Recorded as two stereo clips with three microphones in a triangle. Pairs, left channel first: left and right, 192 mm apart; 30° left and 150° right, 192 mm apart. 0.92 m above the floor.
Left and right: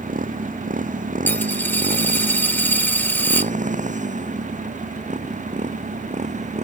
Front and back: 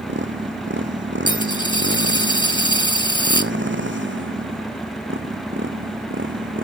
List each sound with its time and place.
0.0 s a motorcycle: 135° right; by 6.6 s 140° right
1.3 s a dropped coin: 30° left